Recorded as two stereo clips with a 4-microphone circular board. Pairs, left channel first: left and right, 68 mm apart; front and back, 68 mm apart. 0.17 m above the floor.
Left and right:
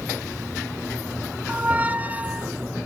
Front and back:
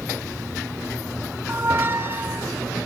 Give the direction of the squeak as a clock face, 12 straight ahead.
5 o'clock.